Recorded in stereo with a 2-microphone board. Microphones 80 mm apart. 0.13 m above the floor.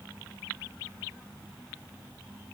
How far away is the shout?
No shout in this recording.